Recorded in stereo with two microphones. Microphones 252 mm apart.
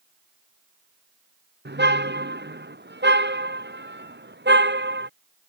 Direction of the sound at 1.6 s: 45° right (ahead or behind).